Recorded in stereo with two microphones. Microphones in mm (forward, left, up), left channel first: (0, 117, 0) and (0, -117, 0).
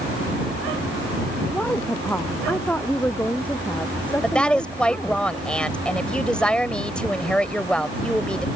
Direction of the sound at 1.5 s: 5° left (ahead or behind).